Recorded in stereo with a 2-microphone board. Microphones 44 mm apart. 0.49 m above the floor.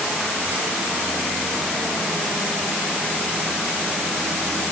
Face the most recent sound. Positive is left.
No sound to turn to.